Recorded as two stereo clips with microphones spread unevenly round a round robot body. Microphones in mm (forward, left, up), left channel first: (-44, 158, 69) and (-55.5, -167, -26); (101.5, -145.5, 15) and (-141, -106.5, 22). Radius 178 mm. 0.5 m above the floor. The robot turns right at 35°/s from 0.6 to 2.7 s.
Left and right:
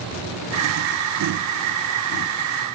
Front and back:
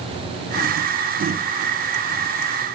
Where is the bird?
I don't hear a bird.